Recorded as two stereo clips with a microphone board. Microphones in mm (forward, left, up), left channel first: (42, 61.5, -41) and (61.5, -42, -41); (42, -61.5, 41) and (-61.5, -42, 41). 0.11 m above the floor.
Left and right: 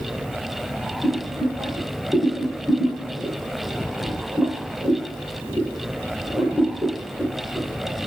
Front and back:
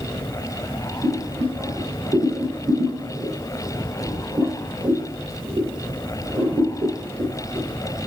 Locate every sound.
1.0 s boiling: 150° right, 2.5 m